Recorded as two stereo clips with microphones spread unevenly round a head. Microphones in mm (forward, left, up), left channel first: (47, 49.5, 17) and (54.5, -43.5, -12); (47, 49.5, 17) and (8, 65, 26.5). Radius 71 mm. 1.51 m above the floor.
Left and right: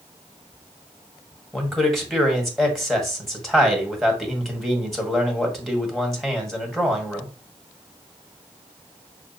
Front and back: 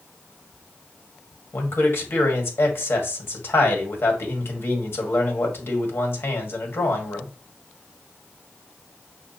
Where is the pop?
No pop in this recording.